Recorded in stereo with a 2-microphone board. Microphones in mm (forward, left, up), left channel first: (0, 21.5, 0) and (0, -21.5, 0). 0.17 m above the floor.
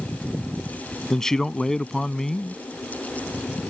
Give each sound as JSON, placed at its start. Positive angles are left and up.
{"t": 1.1, "sound": "a man speaking", "side_deg": 15}